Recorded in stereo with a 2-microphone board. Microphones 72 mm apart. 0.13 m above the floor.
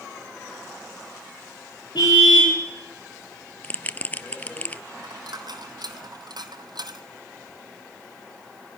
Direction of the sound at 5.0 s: 75° right (ahead or behind).